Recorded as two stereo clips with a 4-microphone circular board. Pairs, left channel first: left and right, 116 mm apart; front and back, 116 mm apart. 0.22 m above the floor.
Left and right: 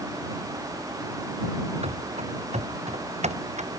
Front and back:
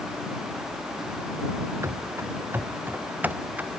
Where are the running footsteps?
115° right; by 3.7 s 100° right.